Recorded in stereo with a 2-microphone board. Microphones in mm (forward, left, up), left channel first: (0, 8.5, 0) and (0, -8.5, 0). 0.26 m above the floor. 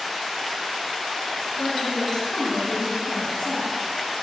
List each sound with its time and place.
1.6 s a woman speaking: 65° left (ahead or behind), 3 m